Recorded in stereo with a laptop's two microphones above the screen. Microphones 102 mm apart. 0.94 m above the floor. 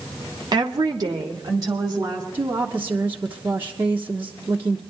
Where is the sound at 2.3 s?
20° right (ahead or behind), 1.0 m.